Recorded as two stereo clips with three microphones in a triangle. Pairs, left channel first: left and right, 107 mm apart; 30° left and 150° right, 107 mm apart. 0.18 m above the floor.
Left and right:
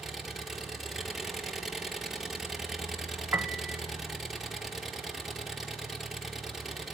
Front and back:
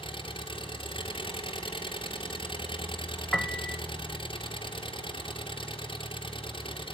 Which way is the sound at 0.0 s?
Straight ahead.